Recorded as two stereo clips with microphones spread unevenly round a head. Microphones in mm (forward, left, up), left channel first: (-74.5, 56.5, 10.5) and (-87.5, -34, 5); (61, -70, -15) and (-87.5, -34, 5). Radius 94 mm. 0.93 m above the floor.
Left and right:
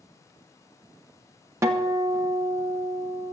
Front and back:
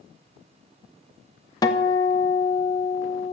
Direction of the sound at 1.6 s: 55° right.